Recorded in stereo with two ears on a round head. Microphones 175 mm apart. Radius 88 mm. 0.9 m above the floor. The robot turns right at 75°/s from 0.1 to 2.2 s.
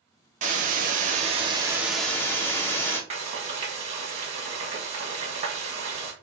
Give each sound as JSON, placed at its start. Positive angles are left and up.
{"t": 0.4, "sound": "a hiss", "azimuth_deg": -115, "distance_m": 1.1}
{"t": 3.1, "sound": "frying", "side_deg": -35, "distance_m": 1.5}